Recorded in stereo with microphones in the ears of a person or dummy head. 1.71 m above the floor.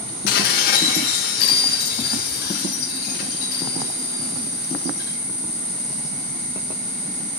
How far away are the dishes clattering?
About 1.3 m.